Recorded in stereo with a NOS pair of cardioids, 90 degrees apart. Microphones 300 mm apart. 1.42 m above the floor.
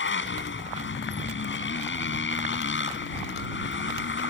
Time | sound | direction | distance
0.0 | a motorcycle | 40° left | ?